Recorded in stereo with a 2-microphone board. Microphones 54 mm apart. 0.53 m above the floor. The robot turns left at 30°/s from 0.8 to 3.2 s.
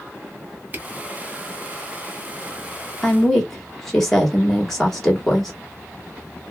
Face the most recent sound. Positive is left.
turn(degrees=5)  # may be behind; listen again after turning